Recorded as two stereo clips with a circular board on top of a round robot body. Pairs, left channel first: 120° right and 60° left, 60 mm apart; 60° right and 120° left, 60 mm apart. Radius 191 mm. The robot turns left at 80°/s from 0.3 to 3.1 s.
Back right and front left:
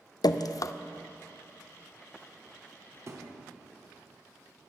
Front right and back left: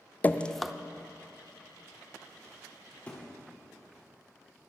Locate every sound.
0.2 s dripping: 125° right, 0.6 m; by 0.7 s 155° right, 0.6 m
3.1 s a thud: 10° left, 1.1 m